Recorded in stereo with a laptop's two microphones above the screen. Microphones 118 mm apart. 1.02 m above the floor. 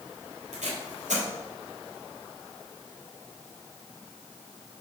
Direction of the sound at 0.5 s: 85° right.